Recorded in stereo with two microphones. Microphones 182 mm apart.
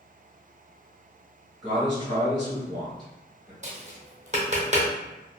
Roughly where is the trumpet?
No trumpet in this recording.